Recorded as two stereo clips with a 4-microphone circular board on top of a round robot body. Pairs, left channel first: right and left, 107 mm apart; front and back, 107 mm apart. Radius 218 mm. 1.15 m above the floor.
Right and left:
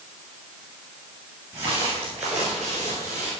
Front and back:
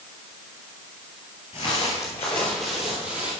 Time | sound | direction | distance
1.5 | footsteps | 20° left | 1.6 m